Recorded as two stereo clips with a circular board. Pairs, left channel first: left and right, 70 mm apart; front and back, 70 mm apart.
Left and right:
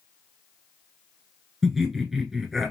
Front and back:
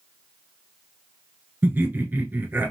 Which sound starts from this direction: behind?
Laughter, at 1.6 s.